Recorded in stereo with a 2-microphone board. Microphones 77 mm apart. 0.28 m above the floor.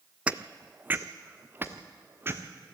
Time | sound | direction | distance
0.3 | footsteps | 15° right (ahead or behind) | 0.6 m